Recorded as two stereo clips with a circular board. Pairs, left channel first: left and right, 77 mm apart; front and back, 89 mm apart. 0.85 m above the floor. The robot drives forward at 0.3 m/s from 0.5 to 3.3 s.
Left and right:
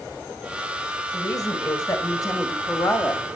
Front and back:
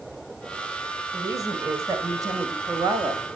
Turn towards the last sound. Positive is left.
turn(degrees=135)